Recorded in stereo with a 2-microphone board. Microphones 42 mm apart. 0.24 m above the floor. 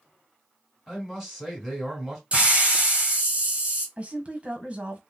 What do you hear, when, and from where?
0.9 s a man speaking: 5° left (ahead or behind), 1.8 m
2.3 s a hiss: 30° right (ahead or behind), 1.5 m
4.0 s a woman speaking: 30° right (ahead or behind), 1.3 m